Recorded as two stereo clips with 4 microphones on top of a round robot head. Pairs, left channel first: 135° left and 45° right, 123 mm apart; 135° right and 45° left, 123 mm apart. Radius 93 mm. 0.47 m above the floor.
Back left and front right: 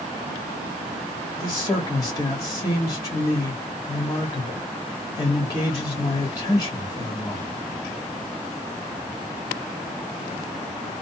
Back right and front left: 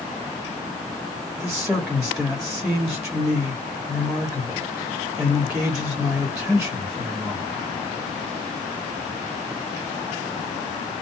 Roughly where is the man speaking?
Behind left.